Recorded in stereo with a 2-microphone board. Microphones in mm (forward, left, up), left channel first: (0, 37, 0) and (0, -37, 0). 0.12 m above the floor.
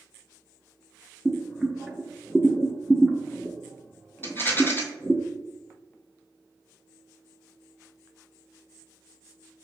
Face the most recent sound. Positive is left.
turn(degrees=30)  # may be behind; listen again after turning